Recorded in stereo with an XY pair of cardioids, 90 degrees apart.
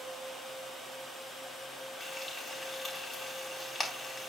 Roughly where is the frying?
Ahead left.